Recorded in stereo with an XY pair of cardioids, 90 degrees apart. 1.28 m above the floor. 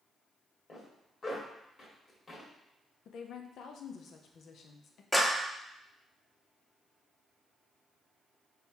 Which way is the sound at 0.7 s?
45° left.